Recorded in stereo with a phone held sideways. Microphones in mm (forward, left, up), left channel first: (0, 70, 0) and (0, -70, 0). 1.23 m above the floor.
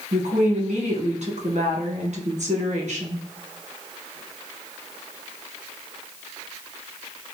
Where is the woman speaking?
60° right (ahead or behind), 1.1 m.